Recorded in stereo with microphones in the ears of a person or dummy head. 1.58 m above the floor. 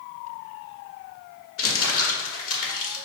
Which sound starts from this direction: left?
Crumpling, at 1.6 s.